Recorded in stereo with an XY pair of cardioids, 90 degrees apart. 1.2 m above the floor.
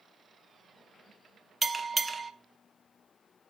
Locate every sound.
1.6 s a bell: 25° right, 0.7 m